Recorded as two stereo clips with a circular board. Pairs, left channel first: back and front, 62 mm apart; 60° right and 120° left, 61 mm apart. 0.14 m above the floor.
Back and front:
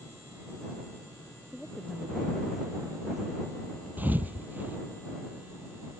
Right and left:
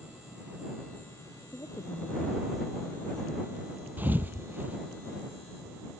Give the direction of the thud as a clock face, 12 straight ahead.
10 o'clock.